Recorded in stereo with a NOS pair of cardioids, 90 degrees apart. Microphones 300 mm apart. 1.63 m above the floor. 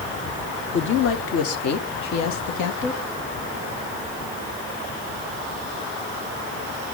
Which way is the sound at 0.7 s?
40° left.